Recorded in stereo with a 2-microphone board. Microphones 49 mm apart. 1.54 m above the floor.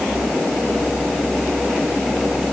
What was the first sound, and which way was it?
Only background noise.